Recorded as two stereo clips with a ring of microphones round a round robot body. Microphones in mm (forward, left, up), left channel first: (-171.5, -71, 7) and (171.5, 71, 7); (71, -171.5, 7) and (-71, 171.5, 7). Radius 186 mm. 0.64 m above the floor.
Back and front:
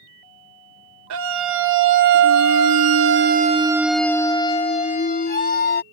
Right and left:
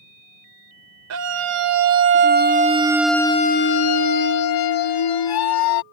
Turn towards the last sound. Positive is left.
turn(degrees=-95)